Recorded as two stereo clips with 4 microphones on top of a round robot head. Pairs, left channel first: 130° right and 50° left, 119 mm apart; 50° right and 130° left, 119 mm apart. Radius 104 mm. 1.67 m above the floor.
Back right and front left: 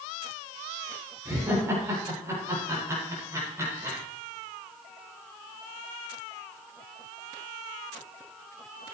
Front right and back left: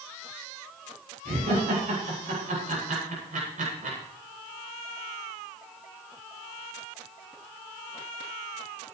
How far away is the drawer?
No drawer in this recording.